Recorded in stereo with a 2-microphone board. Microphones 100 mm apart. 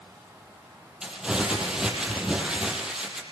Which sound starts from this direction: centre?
Crumpling, at 1.0 s.